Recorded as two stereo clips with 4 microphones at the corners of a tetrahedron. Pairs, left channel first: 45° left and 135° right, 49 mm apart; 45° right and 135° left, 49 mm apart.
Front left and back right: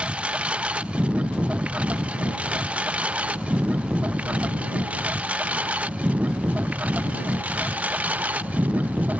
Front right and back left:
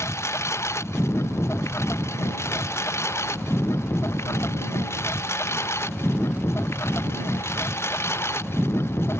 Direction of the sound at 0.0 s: 70° right.